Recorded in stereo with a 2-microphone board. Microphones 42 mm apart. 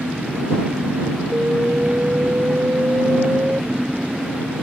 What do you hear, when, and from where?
0.0 s an engine running: 20° right (ahead or behind)
1.3 s an alarm: 45° right (ahead or behind)